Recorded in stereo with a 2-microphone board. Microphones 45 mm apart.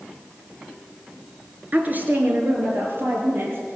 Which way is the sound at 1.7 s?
40° right (ahead or behind).